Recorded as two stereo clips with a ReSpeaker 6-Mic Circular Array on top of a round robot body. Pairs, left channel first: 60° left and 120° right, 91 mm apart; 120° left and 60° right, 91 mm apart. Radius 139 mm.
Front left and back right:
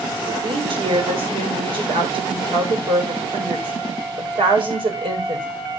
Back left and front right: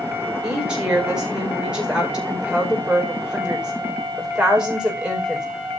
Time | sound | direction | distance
0.4 | a woman speaking | 140° right | 5.5 m